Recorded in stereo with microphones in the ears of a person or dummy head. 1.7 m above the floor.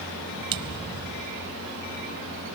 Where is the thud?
25° right (ahead or behind).